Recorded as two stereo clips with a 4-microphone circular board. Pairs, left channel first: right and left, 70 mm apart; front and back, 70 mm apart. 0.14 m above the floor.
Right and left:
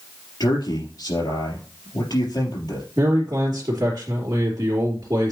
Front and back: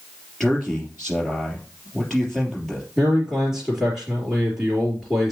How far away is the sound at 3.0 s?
About 2.5 m.